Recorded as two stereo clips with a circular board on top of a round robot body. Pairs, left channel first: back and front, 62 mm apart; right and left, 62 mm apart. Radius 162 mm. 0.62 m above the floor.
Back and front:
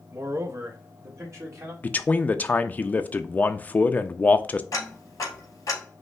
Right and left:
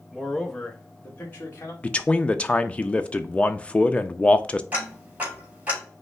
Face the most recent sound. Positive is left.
turn(degrees=155)